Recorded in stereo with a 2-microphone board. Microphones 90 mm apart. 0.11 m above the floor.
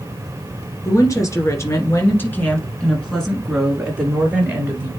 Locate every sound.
0.8 s a woman speaking: 35° left (ahead or behind), 1.9 m; by 4.9 s 20° right (ahead or behind), 1.9 m